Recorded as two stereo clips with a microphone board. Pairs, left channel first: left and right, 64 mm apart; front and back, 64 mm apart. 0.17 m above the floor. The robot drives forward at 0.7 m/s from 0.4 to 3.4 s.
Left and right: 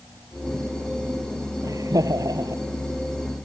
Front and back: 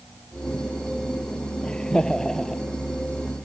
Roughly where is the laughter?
Right.